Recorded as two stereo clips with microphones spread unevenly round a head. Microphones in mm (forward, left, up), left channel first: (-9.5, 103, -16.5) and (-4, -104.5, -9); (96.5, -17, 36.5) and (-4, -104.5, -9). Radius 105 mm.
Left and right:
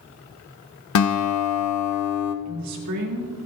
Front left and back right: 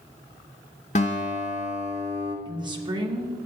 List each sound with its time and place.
0.9 s a guitar: 100° left, 0.9 m
2.5 s a woman speaking: 85° right, 2.5 m